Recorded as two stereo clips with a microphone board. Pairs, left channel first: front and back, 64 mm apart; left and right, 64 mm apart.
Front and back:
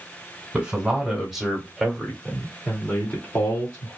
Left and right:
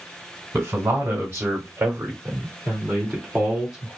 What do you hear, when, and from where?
0.5 s a man speaking: 115° right, 1.8 m; by 4.0 s 10° right, 1.7 m